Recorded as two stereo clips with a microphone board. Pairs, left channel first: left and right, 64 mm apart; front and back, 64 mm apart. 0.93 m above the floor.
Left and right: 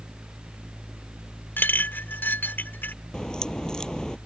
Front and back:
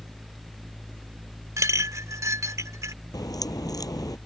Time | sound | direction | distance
1.6 | a clink | 145° left | ?
3.1 | a crack | 10° left | ?